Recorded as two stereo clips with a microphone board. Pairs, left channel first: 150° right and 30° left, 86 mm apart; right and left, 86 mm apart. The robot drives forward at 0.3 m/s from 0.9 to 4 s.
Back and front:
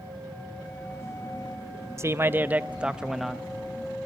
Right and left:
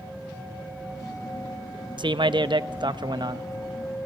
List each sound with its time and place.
2.0 s a man speaking: 85° left, 0.6 m; by 3.5 s 125° left, 0.7 m